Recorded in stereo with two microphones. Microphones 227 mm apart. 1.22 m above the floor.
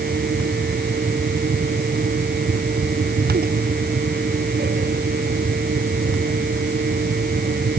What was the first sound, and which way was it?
Only background noise.